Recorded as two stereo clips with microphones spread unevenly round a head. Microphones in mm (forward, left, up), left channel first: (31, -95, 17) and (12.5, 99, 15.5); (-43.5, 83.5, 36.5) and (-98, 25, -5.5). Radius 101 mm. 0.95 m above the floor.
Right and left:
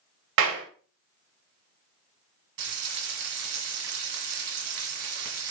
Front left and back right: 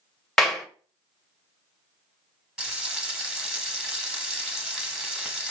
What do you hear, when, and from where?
0.4 s a clap: 130° left, 0.9 m
2.6 s frying: 130° left, 1.3 m